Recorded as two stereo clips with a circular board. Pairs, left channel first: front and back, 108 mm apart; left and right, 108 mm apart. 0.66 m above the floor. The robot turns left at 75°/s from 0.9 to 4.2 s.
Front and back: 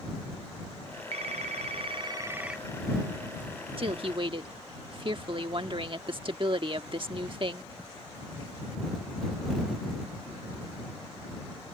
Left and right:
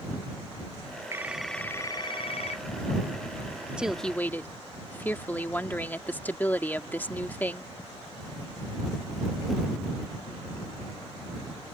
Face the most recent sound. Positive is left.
turn(degrees=160)